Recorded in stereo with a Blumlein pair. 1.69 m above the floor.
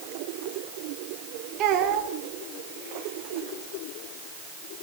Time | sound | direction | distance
1.6 | a child speaking | 35° right | 3 m